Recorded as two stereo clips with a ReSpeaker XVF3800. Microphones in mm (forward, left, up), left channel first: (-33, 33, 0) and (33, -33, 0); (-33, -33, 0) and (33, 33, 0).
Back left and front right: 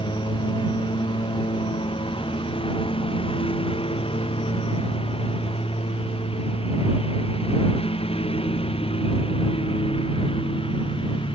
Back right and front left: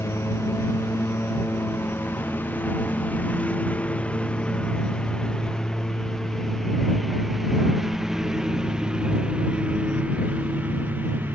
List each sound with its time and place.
0.0 s a lawn mower: 160° left; by 11.3 s 115° left